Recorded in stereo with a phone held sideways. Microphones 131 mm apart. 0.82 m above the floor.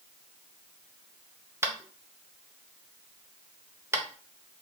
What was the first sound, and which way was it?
Tapping, 20° right (ahead or behind).